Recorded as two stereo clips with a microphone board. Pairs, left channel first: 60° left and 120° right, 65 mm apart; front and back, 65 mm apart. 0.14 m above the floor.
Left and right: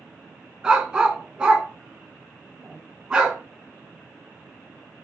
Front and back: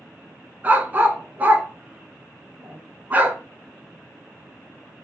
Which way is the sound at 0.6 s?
Straight behind.